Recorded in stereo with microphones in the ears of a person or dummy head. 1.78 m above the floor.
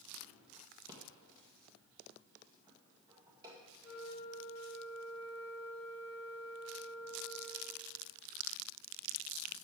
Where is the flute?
20° left (ahead or behind), 2.5 m.